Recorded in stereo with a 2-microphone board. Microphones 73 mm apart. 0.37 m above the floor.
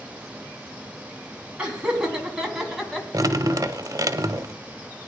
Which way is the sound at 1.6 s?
15° right (ahead or behind).